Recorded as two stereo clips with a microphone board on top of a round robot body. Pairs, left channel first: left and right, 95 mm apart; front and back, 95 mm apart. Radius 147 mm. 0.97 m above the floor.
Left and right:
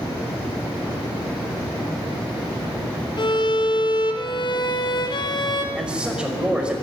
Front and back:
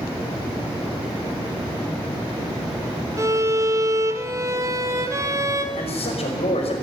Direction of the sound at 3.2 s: 125° left.